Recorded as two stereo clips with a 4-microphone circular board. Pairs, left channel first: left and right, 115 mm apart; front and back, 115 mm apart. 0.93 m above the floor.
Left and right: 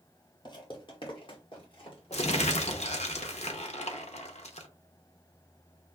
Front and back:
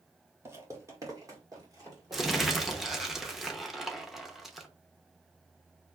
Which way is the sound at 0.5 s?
120° left.